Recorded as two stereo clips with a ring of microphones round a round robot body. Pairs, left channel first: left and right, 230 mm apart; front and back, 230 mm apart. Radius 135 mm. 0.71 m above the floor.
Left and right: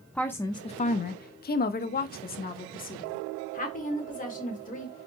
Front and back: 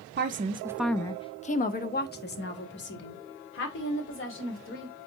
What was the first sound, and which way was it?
A woman speaking, 175° left.